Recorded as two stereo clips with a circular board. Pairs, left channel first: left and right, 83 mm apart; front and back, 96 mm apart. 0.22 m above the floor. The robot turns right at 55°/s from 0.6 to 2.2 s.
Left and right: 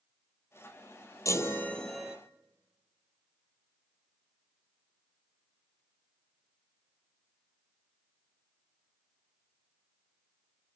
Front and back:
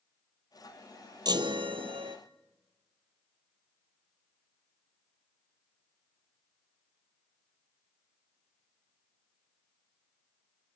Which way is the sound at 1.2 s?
140° left.